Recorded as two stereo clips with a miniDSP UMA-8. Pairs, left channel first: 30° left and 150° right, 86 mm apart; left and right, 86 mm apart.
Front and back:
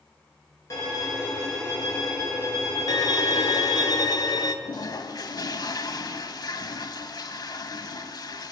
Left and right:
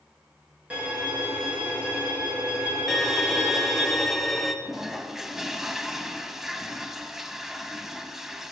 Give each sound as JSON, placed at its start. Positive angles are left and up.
{"t": 0.7, "sound": "a violin", "azimuth_deg": -15, "distance_m": 3.0}
{"t": 2.9, "sound": "a violin", "azimuth_deg": 0, "distance_m": 0.5}
{"t": 4.7, "sound": "a toilet flushing", "azimuth_deg": -5, "distance_m": 0.5}